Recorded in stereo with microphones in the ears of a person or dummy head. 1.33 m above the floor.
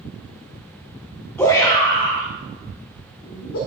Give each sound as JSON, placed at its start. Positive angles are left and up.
{"t": 1.4, "sound": "a shout", "side_deg": 10, "distance_m": 1.0}